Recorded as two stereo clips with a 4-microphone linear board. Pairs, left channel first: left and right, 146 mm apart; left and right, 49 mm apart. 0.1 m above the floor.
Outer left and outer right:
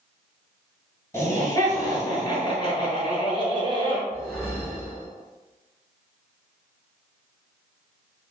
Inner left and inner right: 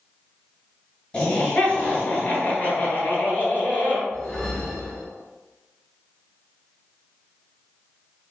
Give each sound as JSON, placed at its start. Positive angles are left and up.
{"t": 1.1, "sound": "laughter", "side_deg": 20, "distance_m": 1.5}
{"t": 4.1, "sound": "a whoosh", "side_deg": 0, "distance_m": 1.2}